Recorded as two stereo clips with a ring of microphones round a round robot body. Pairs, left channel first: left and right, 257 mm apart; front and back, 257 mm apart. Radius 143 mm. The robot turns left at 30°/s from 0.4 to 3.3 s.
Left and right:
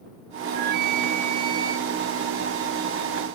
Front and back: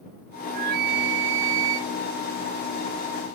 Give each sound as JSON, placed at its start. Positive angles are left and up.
{"t": 0.5, "sound": "a flute", "azimuth_deg": -125}